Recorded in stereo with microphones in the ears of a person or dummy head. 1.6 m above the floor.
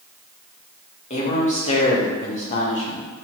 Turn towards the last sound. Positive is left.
turn(degrees=40)  # may be behind; listen again after turning